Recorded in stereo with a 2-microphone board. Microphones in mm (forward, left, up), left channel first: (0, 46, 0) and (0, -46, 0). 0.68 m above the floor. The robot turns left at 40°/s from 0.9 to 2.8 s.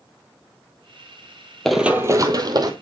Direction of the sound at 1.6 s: 5° left (ahead or behind).